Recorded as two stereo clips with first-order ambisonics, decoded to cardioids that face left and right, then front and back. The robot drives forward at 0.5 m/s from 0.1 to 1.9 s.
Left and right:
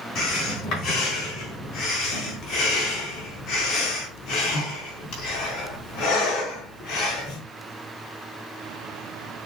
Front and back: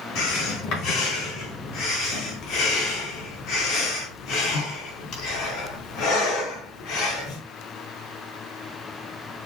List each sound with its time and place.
0.1 s breathing: 35° left, 5 m; by 7.4 s 40° left, 4 m